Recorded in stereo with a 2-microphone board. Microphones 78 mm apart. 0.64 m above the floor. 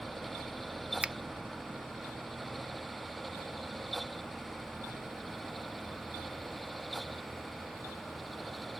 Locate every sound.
1.0 s a finger snap: 15° right (ahead or behind), 0.8 m